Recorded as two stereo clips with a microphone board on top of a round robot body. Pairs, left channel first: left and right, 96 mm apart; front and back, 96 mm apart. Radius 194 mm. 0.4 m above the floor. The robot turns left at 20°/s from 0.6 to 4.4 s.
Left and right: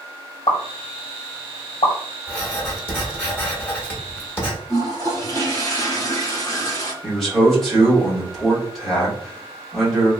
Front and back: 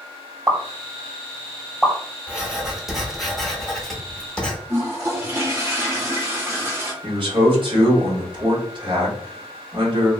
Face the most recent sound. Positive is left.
turn(degrees=180)